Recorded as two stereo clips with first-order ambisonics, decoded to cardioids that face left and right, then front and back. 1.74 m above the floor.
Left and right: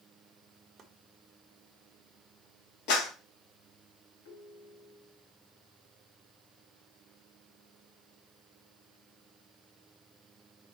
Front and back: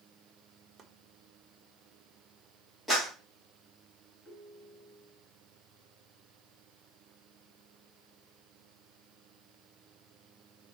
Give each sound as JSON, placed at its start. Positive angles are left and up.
{"t": 0.8, "sound": "chopping", "azimuth_deg": -145, "distance_m": 1.2}
{"t": 2.9, "sound": "a clap", "azimuth_deg": 95, "distance_m": 3.5}
{"t": 4.2, "sound": "a ringtone", "azimuth_deg": 90, "distance_m": 4.5}